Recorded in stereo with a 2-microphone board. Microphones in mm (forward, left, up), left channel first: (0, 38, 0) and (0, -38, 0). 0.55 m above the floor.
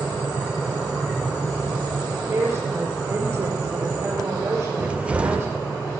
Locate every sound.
2.3 s a woman speaking: 35° right (ahead or behind), 6 m
4.8 s a cupboard door: 15° right (ahead or behind), 0.9 m